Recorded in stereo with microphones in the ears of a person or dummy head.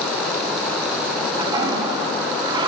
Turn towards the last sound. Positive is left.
turn(degrees=-20)  # may be behind; listen again after turning